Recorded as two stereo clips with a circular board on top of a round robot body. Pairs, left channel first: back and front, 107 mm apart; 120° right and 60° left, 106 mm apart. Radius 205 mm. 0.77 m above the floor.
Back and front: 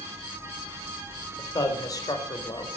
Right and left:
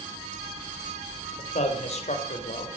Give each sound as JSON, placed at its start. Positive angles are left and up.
{"t": 1.4, "sound": "a man speaking", "azimuth_deg": -125, "distance_m": 4.0}